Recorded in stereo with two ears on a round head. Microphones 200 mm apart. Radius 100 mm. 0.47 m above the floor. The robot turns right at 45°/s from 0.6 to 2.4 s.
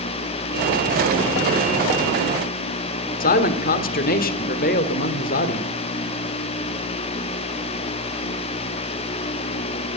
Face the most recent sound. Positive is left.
turn(degrees=40)  # may be behind; listen again after turning